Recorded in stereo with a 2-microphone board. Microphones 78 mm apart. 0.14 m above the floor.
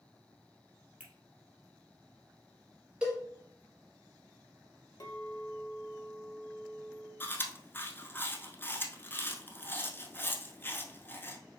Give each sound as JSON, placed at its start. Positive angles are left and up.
{"t": 1.0, "sound": "a finger snap", "side_deg": -20, "distance_m": 1.9}
{"t": 3.0, "sound": "a cowbell", "side_deg": -10, "distance_m": 2.5}
{"t": 5.0, "sound": "a clink", "side_deg": 60, "distance_m": 1.7}
{"t": 7.2, "sound": "chewing", "side_deg": 25, "distance_m": 0.7}